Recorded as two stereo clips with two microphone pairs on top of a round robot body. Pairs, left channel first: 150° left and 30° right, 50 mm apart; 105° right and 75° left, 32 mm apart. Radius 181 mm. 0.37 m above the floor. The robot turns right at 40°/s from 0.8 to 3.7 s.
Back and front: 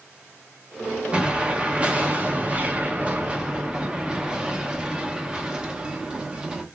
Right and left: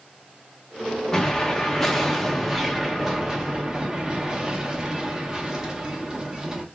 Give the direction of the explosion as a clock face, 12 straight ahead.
3 o'clock.